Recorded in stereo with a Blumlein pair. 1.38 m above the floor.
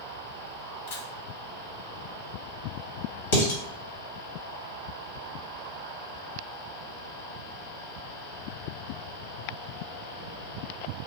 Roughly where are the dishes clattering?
Ahead left.